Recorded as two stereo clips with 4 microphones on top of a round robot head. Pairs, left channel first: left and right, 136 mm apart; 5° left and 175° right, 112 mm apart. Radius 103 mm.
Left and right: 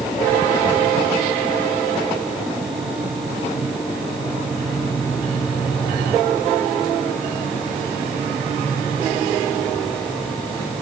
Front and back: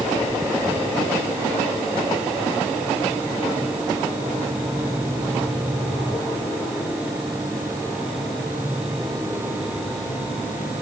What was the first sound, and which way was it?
Only background noise.